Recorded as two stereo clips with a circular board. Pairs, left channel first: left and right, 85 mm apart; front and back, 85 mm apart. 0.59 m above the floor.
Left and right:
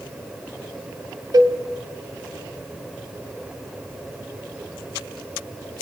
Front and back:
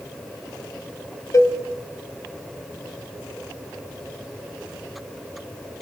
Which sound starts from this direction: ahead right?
A cowbell, at 1.3 s.